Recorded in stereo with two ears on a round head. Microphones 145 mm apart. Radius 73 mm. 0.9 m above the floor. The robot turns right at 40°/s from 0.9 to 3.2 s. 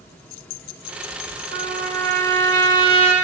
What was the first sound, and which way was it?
A trumpet, 120° right.